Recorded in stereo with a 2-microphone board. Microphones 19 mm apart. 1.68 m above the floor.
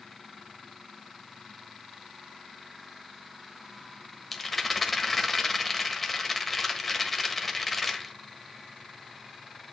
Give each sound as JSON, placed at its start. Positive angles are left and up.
{"t": 4.3, "sound": "a rattle", "side_deg": 5, "distance_m": 1.2}